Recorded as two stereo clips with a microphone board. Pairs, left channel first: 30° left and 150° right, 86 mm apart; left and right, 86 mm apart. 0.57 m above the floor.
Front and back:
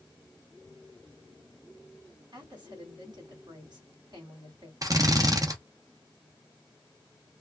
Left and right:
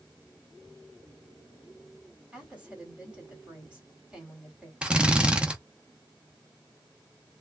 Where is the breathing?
I don't hear breathing.